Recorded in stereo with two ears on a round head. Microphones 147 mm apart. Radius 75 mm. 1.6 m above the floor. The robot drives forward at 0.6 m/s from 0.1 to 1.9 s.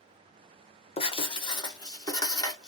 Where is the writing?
35° left (ahead or behind), 0.8 m; by 2.7 s 20° left (ahead or behind), 1.2 m.